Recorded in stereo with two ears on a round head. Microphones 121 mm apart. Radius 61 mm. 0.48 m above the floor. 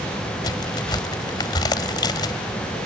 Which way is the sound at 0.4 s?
30° left (ahead or behind).